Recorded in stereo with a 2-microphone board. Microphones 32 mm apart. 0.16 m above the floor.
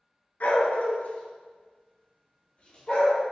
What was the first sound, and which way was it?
A dog barking, 55° left (ahead or behind).